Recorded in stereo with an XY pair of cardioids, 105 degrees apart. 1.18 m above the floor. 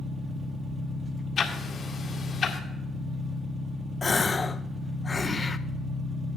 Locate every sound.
0.0 s an engine running: 45° right, 1.3 m
1.4 s ticking: 50° left, 2 m
4.0 s a gasp: 25° left, 0.5 m